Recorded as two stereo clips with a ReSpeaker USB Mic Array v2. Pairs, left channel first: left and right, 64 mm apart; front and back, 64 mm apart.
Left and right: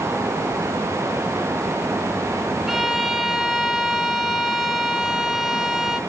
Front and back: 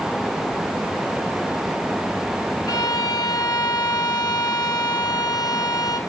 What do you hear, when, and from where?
2.7 s a violin: 5° right, 1.3 m